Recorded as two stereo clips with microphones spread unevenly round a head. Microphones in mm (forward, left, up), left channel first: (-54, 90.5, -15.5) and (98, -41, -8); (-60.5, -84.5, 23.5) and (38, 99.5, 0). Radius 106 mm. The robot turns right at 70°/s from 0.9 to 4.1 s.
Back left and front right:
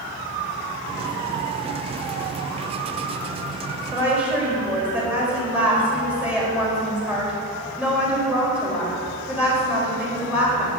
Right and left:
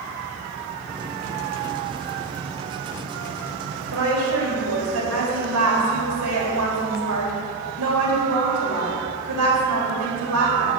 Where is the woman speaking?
30° left, 4 m; by 10.8 s 45° left, 4 m.